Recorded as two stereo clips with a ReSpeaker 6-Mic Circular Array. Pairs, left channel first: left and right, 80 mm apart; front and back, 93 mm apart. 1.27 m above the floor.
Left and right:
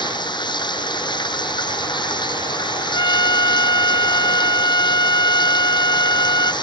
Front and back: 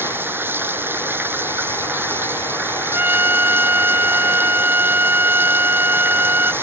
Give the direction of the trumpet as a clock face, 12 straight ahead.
8 o'clock.